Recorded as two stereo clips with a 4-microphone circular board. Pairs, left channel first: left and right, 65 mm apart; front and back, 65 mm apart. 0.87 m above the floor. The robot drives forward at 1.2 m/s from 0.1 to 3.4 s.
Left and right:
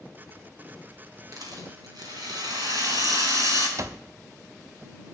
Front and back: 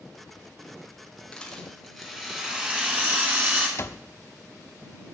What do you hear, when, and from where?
1.3 s a rattle: 75° right, 3.5 m; by 3.7 s 120° right, 3.5 m
3.8 s an alarm clock: 45° right, 0.6 m